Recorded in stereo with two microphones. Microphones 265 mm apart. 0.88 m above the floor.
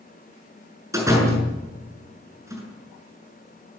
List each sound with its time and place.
0.9 s a door slam: 10° right (ahead or behind), 7 m